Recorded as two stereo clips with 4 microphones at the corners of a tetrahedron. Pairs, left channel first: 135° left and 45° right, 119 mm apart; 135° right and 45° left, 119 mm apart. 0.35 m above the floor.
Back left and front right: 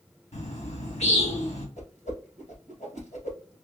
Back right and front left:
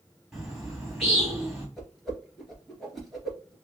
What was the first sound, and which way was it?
A bird, 135° left.